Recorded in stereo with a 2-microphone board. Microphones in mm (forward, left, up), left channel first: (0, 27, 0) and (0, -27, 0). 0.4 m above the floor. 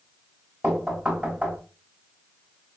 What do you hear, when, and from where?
0.6 s knocking: 25° right (ahead or behind), 1.1 m